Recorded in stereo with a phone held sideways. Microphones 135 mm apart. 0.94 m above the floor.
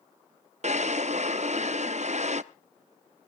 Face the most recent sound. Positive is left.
turn(degrees=-60)  # may be behind; listen again after turning